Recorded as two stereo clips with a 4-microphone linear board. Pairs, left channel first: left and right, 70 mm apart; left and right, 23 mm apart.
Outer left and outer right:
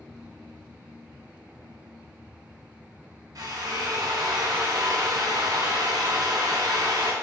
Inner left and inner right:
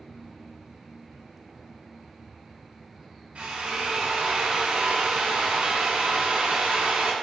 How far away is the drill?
About 4 m.